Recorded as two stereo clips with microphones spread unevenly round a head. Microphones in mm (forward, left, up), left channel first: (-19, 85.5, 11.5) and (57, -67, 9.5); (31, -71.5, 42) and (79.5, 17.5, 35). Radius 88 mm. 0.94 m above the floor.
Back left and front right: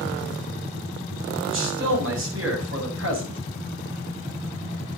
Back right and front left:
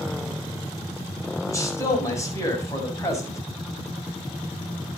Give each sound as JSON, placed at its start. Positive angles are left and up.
{"t": 1.5, "sound": "a man speaking", "azimuth_deg": -60, "distance_m": 7.5}